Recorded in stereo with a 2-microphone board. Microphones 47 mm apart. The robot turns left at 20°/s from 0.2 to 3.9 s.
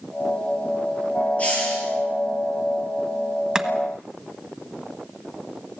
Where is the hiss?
30° left (ahead or behind), 8 m; by 1.9 s 20° left (ahead or behind), 8 m.